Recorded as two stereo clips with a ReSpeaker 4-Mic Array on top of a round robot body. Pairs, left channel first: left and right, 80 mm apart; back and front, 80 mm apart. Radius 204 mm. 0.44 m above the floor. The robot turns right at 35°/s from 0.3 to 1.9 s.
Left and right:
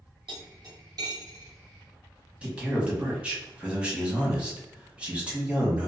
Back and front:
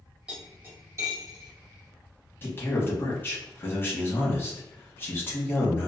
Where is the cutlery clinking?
75° right, 1.3 m; by 1.5 s 35° right, 1.3 m.